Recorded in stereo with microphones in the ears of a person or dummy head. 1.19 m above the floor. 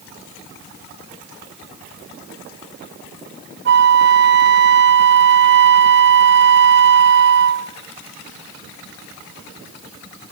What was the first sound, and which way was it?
A flute, 55° right (ahead or behind).